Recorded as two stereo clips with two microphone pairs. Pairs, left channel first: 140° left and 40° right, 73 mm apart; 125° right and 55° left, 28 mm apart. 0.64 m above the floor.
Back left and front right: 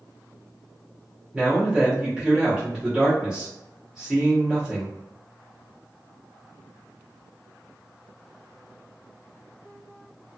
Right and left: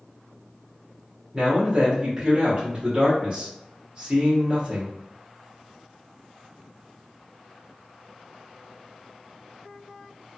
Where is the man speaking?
25° left, 0.9 m.